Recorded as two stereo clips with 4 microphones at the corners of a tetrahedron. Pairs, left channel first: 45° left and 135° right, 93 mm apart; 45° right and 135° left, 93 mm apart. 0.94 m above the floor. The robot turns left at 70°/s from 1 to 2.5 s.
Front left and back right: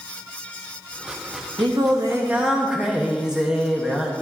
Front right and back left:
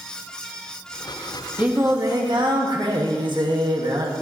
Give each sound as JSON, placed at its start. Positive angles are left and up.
{"t": 1.6, "sound": "singing", "azimuth_deg": -150, "distance_m": 1.4}